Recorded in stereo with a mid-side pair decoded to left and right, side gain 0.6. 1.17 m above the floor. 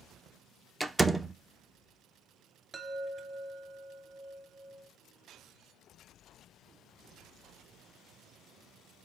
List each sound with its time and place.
0.8 s a door slam: 10° right, 0.6 m
2.7 s a chime: 25° right, 2 m